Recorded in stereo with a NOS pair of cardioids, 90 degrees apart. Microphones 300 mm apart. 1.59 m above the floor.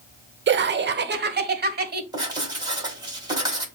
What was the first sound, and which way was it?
Laughter, 40° right.